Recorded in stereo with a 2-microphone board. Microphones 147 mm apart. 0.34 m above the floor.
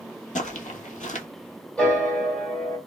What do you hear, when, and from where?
0.3 s footsteps: 60° left (ahead or behind), 0.5 m
1.8 s a piano: 5° left (ahead or behind), 1.5 m